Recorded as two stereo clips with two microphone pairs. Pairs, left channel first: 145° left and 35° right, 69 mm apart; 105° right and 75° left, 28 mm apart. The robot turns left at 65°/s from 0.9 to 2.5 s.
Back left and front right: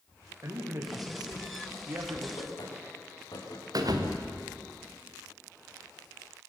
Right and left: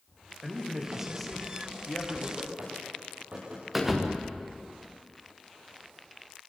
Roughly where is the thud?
Ahead.